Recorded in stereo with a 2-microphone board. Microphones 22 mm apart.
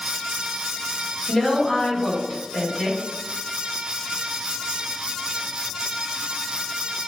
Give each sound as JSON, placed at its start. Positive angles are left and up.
{"t": 1.3, "sound": "a woman speaking", "side_deg": 30, "distance_m": 1.4}